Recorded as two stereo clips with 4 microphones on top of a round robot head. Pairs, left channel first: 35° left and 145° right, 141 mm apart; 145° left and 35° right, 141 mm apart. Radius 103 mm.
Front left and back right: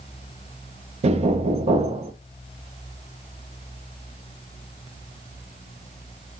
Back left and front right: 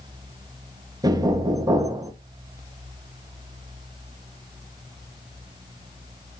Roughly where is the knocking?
Right.